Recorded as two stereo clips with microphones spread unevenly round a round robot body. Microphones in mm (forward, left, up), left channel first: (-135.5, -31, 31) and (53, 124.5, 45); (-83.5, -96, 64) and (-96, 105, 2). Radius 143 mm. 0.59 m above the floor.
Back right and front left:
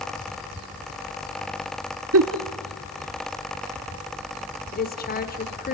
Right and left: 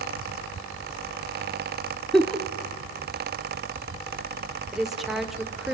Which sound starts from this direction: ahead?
A giggle, at 2.1 s.